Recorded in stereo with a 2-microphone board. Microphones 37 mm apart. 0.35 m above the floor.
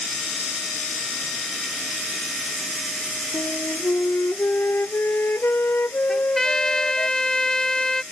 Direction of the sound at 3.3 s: 80° left.